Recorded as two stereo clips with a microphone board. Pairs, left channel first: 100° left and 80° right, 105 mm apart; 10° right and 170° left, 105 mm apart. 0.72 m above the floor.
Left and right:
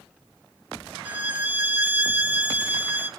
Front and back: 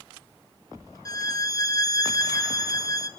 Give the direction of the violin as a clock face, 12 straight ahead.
1 o'clock.